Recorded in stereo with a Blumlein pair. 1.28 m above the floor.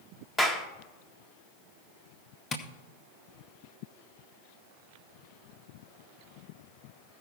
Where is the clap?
10° left, 1.2 m.